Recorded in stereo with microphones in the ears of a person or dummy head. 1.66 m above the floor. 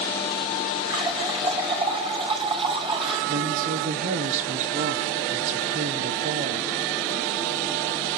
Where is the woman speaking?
45° right (ahead or behind), 1.1 m.